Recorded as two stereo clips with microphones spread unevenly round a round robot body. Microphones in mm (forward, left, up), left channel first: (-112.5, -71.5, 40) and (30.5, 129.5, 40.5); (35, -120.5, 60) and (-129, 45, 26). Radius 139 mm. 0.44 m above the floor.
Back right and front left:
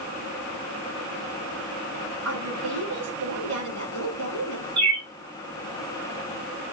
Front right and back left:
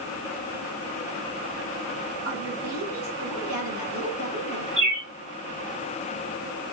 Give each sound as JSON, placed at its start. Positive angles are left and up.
{"t": 2.2, "sound": "a woman speaking", "azimuth_deg": 75, "distance_m": 5.5}
{"t": 4.8, "sound": "a bird", "azimuth_deg": 65, "distance_m": 2.5}